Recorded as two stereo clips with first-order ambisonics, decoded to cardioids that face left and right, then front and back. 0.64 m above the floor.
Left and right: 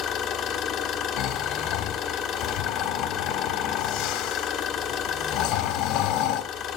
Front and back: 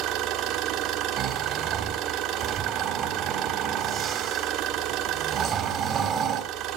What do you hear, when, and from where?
0.0 s an engine running: 145° left, 1.5 m
1.2 s snoring: 115° left, 1.5 m